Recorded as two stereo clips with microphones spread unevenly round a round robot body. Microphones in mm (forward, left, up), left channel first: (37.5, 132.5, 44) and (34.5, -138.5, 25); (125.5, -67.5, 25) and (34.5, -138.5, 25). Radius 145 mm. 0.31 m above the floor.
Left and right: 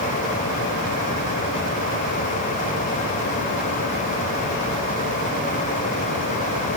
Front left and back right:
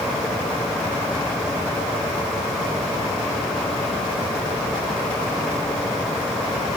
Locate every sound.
Only background noise.